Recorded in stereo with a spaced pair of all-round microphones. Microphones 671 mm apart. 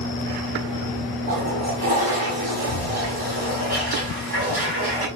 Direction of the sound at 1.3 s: 35° right (ahead or behind).